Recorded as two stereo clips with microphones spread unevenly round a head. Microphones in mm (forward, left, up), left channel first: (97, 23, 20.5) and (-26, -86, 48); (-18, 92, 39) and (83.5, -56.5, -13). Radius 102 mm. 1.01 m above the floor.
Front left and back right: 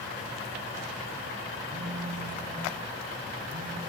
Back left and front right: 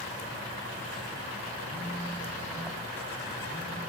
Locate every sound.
1.7 s a phone buzzing: 140° right, 4.5 m